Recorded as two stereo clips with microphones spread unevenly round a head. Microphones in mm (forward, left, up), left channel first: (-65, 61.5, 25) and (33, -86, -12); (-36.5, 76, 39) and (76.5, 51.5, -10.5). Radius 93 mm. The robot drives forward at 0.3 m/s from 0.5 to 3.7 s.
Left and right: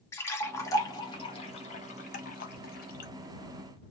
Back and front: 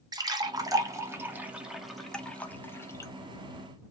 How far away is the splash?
About 0.8 m.